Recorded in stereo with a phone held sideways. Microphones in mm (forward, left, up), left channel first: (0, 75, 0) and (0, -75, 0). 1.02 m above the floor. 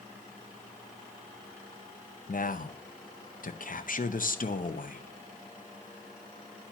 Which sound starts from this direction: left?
A man speaking, at 2.3 s.